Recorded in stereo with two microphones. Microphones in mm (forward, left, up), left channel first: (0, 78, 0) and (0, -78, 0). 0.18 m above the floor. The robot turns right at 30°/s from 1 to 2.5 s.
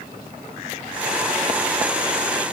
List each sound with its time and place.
Only background noise.